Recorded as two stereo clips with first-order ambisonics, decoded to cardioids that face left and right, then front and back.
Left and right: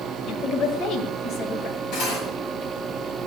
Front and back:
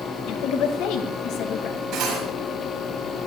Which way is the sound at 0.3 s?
35° left.